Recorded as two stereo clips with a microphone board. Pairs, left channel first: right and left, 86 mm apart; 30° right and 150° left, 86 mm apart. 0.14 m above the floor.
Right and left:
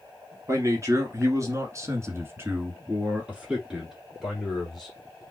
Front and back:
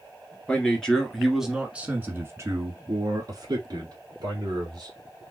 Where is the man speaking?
45° left, 1.9 m; by 4.9 s straight behind, 2.5 m.